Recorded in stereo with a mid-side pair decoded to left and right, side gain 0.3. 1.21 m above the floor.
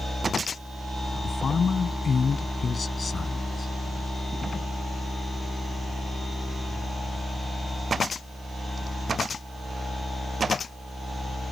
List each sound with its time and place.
1.2 s a woman speaking: 55° left; by 3.7 s 45° left